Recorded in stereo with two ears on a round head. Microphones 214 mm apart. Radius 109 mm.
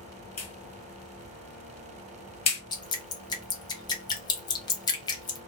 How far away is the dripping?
About 0.6 m.